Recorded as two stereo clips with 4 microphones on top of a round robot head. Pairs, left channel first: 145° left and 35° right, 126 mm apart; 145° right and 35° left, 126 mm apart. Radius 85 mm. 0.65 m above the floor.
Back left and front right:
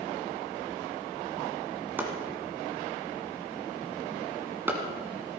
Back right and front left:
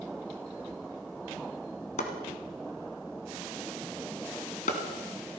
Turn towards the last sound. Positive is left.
turn(degrees=-115)